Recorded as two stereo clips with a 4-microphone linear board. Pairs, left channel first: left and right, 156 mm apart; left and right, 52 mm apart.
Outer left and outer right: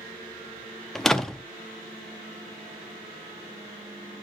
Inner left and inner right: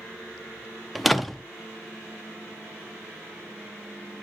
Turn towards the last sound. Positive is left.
turn(degrees=0)  # may be behind; listen again after turning